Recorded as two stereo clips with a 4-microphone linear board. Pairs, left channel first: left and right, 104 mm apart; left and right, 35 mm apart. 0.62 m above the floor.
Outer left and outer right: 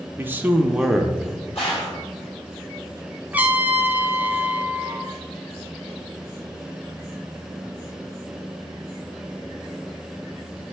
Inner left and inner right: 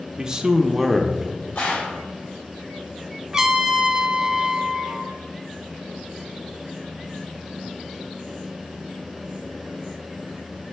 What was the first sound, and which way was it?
A man speaking, 20° right (ahead or behind).